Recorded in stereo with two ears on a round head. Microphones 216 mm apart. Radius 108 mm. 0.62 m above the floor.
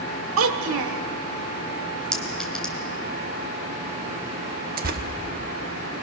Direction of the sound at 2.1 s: 5° left (ahead or behind).